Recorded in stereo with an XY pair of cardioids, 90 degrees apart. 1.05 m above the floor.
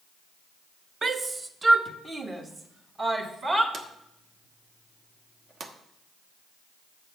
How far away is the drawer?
About 1.1 m.